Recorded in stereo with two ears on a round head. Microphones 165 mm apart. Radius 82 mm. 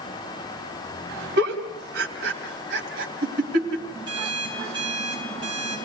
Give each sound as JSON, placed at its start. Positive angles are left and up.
{"t": 1.4, "sound": "a giggle", "side_deg": -60, "distance_m": 3.0}
{"t": 4.1, "sound": "an alarm clock", "side_deg": -25, "distance_m": 7.0}